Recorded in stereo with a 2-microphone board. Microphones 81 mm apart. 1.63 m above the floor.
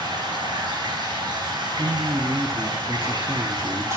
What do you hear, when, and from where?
0.0 s running water: 60° right (ahead or behind), 3.5 m
1.8 s a man speaking: 35° right (ahead or behind), 0.7 m